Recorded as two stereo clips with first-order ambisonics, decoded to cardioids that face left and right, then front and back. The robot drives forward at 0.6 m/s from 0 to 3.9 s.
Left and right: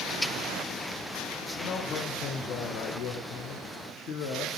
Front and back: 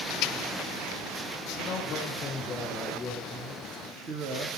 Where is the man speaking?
35° left, 1.2 m; by 4.5 s 130° left, 1.0 m.